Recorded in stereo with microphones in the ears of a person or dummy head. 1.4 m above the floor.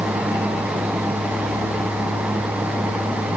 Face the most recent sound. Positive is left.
No sound to turn to.